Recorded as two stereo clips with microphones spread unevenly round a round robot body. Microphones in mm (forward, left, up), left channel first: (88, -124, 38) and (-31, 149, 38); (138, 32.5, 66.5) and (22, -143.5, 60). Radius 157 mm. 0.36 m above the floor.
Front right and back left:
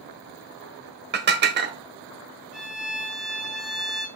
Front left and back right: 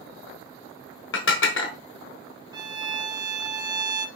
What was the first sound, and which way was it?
Dishes clattering, 60° left.